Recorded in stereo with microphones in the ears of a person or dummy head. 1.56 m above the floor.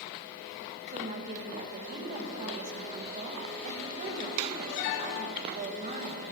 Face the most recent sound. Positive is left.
turn(degrees=-45)  # may be behind; listen again after turning